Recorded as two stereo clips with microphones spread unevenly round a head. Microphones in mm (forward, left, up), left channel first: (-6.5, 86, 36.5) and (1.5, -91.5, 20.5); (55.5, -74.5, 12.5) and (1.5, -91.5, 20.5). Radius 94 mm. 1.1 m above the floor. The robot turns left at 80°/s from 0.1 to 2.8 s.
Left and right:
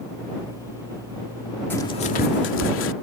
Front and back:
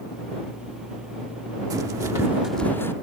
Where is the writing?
170° left; by 2.9 s 85° left.